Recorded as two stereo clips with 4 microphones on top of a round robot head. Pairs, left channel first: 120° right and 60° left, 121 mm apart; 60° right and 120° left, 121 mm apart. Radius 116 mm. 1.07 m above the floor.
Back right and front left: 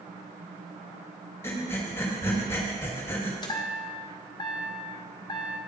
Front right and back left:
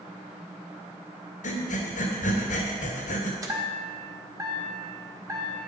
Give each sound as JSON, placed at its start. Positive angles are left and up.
{"t": 1.4, "sound": "breathing", "azimuth_deg": -55, "distance_m": 1.9}
{"t": 3.4, "sound": "a chime", "azimuth_deg": -175, "distance_m": 1.6}